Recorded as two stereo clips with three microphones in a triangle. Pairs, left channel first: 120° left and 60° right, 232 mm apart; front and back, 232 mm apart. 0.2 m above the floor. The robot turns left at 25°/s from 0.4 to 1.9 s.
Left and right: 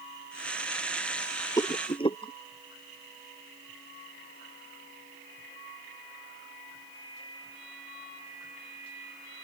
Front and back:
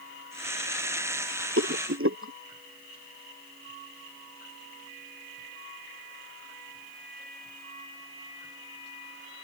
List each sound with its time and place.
1.6 s a rattle: 165° right; by 2.3 s 175° right